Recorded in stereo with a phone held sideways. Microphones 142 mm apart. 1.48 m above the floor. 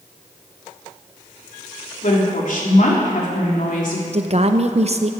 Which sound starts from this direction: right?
A woman speaking, at 4.1 s.